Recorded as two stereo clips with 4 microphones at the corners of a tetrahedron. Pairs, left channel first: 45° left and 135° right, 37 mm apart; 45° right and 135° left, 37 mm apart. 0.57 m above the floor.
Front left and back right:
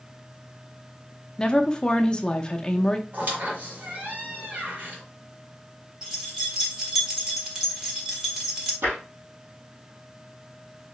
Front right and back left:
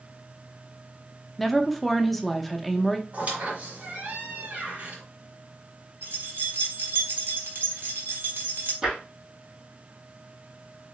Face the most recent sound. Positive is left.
turn(degrees=-150)